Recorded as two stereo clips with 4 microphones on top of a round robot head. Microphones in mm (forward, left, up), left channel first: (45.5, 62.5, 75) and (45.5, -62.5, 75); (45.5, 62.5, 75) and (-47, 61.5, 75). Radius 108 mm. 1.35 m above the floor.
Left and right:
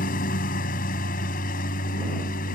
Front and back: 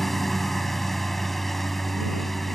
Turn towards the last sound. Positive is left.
turn(degrees=90)